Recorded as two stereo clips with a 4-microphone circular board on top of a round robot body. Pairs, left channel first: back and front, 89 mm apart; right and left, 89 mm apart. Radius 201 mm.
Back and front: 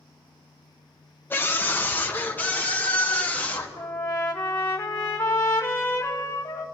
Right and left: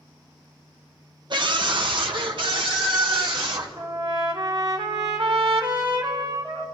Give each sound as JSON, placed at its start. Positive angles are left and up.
{"t": 1.3, "sound": "a scream", "azimuth_deg": 115, "distance_m": 1.4}
{"t": 3.8, "sound": "a trumpet", "azimuth_deg": 125, "distance_m": 2.0}